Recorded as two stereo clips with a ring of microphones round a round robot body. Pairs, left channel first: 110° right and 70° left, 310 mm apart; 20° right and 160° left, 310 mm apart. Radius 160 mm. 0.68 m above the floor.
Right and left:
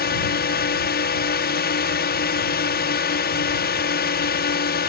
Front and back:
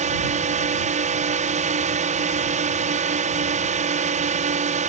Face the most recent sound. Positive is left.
turn(degrees=-150)